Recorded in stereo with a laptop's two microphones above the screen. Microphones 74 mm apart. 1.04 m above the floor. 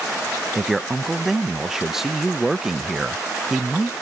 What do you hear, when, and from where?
0.6 s a man speaking: 5° right (ahead or behind)